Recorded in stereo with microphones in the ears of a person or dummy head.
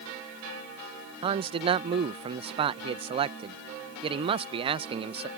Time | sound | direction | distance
1.2 | a man speaking | 30° right (ahead or behind) | ?